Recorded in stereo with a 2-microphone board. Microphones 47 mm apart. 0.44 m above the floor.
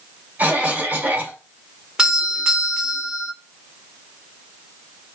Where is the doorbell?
15° right (ahead or behind), 1.6 m.